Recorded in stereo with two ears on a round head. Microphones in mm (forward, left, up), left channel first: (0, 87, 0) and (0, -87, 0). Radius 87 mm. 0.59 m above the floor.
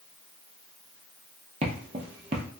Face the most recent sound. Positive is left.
turn(degrees=-30)  # may be behind; listen again after turning